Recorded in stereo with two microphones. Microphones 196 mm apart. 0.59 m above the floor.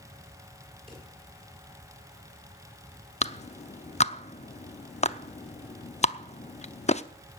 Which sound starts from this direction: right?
A drawer, at 0.9 s.